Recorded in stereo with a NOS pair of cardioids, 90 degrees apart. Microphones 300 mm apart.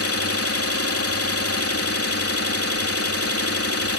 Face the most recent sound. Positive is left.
turn(degrees=50)